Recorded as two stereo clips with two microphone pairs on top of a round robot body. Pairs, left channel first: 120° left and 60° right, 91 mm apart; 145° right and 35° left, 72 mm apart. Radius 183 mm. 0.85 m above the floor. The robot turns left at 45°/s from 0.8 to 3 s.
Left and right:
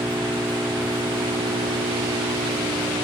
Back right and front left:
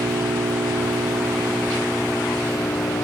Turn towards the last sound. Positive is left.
turn(degrees=-100)